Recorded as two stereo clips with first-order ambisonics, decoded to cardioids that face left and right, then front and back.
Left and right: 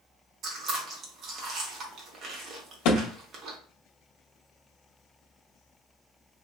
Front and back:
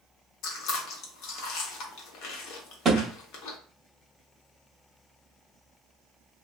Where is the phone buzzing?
No phone buzzing in this recording.